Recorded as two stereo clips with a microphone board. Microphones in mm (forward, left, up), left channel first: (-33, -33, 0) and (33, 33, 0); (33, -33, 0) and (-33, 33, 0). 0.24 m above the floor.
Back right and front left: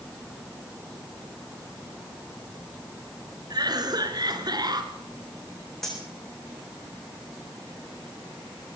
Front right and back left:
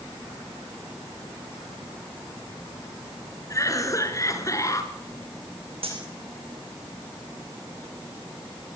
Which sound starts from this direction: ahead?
A cough, at 3.5 s.